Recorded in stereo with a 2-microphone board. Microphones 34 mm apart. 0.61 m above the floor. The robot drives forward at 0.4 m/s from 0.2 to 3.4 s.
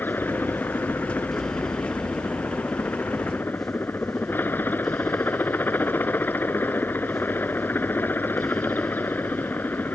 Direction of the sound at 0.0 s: 80° left.